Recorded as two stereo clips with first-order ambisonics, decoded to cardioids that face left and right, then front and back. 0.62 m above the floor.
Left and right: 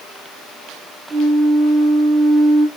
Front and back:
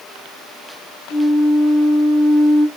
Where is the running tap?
No running tap in this recording.